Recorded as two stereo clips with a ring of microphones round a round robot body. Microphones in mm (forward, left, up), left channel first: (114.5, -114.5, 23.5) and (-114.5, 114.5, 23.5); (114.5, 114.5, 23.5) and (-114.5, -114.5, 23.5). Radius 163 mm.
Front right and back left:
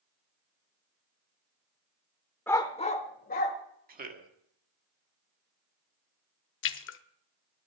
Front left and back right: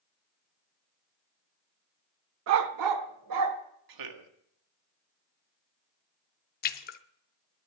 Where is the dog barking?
125° right, 0.7 m; by 3.6 s 105° right, 1.6 m.